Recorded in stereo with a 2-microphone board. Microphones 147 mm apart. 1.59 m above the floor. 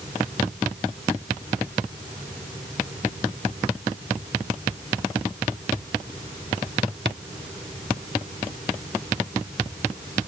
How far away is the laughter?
I don't hear laughter.